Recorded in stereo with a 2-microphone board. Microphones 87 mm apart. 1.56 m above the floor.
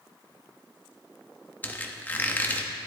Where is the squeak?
20° left (ahead or behind), 0.9 m.